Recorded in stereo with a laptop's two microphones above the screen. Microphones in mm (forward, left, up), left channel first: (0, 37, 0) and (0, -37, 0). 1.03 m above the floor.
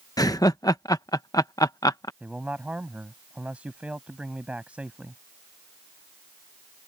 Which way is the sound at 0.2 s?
55° left (ahead or behind).